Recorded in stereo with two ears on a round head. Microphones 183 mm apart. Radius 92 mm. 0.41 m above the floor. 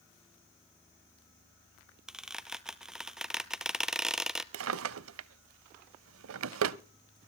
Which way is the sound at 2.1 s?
5° right (ahead or behind).